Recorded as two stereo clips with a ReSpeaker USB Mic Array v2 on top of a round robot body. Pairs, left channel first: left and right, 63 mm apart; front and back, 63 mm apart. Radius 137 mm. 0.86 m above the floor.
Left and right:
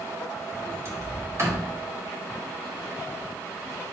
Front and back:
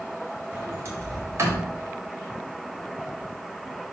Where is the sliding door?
135° right, 2.5 m.